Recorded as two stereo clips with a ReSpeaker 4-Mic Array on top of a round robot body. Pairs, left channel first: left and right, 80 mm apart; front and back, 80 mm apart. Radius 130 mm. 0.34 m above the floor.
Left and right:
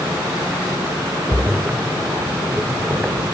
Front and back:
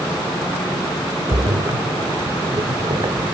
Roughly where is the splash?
Behind.